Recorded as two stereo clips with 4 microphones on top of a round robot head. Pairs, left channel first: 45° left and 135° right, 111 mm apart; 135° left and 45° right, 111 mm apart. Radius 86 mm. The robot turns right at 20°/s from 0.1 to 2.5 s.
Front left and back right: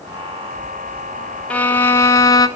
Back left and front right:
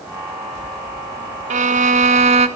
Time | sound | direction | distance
1.5 | a violin | 35° right | 1.4 m